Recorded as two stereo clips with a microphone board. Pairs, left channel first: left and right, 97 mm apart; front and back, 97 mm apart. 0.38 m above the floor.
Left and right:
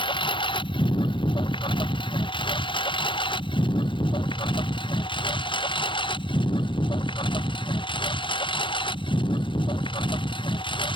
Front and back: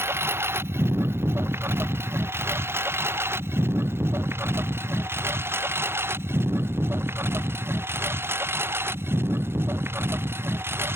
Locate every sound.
0.0 s a lawn mower: 115° left